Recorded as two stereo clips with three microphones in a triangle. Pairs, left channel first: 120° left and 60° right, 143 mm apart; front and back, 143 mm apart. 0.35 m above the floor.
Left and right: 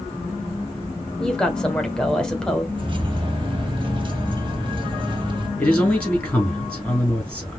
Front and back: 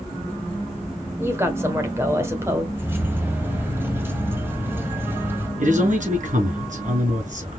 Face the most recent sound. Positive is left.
turn(degrees=-160)